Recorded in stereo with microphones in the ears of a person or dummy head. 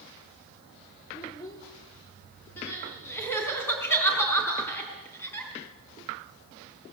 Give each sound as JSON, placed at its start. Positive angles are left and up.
{"t": 1.1, "sound": "a child speaking", "side_deg": 25, "distance_m": 2.5}
{"t": 2.6, "sound": "crying", "side_deg": 10, "distance_m": 4.5}